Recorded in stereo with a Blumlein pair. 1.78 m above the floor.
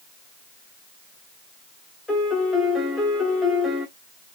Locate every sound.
2.1 s a piano: 10° left, 1.3 m